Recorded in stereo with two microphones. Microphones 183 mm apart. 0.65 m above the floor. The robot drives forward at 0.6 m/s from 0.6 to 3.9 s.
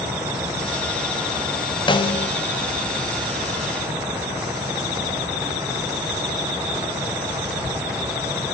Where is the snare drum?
25° left (ahead or behind), 0.9 m; by 2.3 s 35° left (ahead or behind), 0.7 m.